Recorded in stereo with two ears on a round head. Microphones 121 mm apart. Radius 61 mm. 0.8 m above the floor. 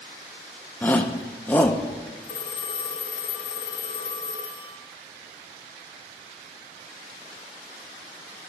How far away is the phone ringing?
About 1.2 m.